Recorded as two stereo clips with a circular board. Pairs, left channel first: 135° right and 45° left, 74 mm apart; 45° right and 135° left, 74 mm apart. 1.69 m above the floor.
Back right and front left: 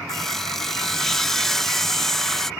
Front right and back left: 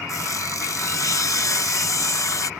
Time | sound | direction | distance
0.1 | sawing | 55° right | ?